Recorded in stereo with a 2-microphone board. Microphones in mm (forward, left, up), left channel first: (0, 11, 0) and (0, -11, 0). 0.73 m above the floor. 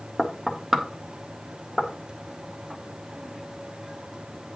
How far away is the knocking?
About 1.4 m.